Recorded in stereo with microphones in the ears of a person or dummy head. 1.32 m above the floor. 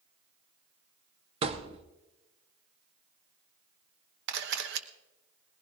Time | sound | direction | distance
1.4 | a thud | 35° right (ahead or behind) | 0.9 m
4.3 | a camera shutter | 65° right (ahead or behind) | 1.1 m